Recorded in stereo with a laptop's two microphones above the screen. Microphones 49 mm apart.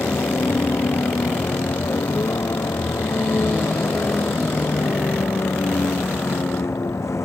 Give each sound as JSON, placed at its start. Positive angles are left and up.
{"t": 0.0, "sound": "a vehicle", "side_deg": 80}